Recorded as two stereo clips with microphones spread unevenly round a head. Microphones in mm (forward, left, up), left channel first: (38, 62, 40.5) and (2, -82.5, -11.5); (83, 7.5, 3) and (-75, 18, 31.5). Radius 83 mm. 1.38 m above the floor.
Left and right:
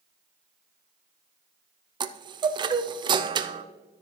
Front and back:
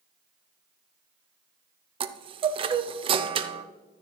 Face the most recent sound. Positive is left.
turn(degrees=-125)